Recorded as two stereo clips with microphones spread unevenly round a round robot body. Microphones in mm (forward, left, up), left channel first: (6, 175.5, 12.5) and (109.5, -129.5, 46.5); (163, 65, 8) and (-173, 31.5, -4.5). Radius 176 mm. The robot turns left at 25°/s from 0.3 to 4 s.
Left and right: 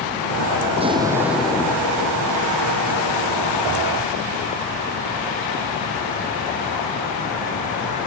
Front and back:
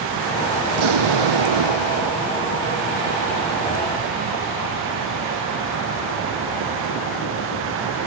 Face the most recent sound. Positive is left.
turn(degrees=135)